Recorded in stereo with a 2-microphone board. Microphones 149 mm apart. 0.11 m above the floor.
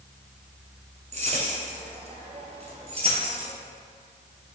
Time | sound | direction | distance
1.1 | keys jangling | 50° right (ahead or behind) | 1.4 m